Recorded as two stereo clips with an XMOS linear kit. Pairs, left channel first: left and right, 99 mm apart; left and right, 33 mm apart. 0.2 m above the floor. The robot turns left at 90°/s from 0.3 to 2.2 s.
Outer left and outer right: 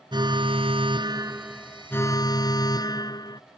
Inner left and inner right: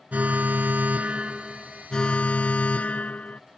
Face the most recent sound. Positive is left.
turn(degrees=130)